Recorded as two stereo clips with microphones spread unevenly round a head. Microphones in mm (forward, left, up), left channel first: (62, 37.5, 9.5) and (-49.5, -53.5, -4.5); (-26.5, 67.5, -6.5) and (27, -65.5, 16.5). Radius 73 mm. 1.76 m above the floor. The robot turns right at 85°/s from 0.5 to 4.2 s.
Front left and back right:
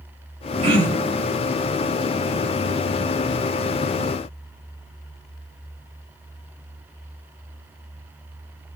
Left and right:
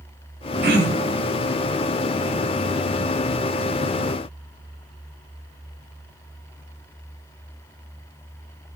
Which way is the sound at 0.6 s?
90° right.